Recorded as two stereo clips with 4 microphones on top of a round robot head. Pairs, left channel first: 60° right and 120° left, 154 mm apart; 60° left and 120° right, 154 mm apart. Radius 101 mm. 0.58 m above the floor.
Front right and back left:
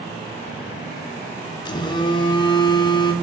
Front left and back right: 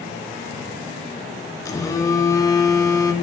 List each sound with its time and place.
1.6 s a phone buzzing: 5° right, 0.7 m